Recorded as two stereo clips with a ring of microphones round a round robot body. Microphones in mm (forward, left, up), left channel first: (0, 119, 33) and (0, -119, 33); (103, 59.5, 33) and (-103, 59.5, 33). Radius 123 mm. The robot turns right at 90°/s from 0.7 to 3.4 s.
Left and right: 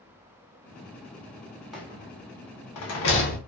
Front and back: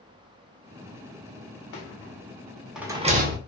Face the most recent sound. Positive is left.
turn(degrees=150)